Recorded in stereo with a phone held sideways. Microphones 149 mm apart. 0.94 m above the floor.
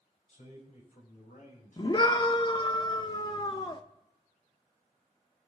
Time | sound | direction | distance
0.3 | a man speaking | 60° left (ahead or behind) | 5.5 m
1.8 | a scream | 35° left (ahead or behind) | 0.9 m